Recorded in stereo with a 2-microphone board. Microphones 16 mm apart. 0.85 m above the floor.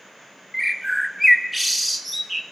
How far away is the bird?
About 0.8 m.